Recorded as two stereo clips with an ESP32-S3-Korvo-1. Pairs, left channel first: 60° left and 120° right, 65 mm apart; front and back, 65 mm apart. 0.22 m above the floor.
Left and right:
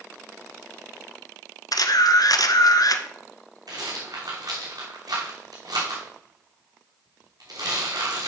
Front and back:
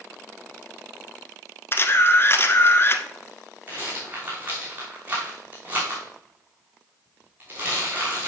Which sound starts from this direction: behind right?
A rattle, at 3.7 s.